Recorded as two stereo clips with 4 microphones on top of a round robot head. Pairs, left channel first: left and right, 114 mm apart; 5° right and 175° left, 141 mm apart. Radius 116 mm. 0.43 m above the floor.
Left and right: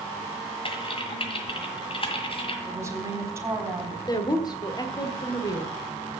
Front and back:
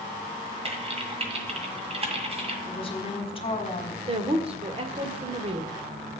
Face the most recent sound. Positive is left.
turn(degrees=140)